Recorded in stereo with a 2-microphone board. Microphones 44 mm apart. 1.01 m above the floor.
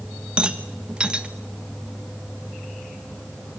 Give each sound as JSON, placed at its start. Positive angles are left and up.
{"t": 0.4, "sound": "a rattle", "side_deg": -20, "distance_m": 1.4}